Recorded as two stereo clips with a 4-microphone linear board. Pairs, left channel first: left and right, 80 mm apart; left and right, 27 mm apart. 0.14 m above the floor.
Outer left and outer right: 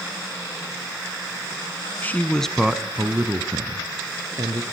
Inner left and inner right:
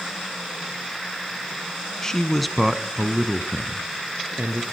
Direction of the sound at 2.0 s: 25° left (ahead or behind).